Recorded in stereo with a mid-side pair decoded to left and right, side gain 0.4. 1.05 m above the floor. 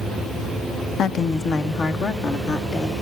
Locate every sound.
1.0 s a woman speaking: 65° left, 0.8 m; by 2.9 s 60° left, 2.5 m